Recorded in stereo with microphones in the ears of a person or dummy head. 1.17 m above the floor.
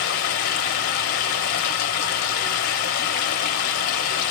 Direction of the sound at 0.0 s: 40° left (ahead or behind).